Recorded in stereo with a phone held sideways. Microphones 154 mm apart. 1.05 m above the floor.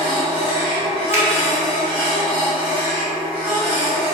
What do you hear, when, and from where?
0.0 s a machine running: 35° right (ahead or behind), 1.0 m
1.1 s a finger snap: 15° right (ahead or behind), 0.6 m